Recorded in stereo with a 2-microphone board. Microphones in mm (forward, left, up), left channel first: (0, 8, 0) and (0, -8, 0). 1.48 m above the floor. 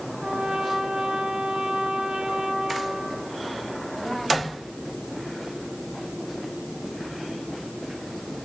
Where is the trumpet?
80° right, 4.5 m.